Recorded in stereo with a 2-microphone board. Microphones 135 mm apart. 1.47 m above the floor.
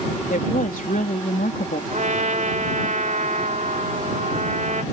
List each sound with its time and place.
0.3 s a woman speaking: 85° left
1.9 s a trumpet: 70° right (ahead or behind)